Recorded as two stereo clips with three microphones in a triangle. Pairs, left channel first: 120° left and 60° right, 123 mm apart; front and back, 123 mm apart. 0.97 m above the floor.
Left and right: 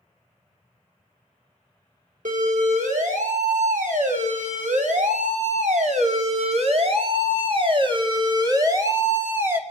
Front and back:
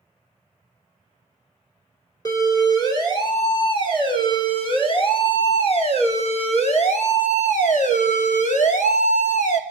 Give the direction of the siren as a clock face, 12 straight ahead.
2 o'clock.